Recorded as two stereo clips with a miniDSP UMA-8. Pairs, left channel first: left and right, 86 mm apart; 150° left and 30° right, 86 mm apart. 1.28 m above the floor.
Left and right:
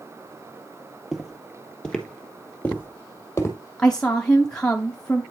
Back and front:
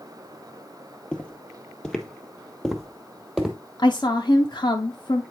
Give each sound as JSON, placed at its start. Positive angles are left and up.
{"t": 1.1, "sound": "footsteps", "azimuth_deg": -165, "distance_m": 1.3}
{"t": 3.8, "sound": "a woman speaking", "azimuth_deg": 170, "distance_m": 0.8}